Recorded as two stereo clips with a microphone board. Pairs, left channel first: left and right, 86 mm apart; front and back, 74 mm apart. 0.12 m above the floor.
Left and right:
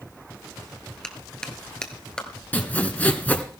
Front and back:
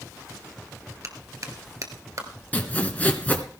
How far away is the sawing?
About 1.6 m.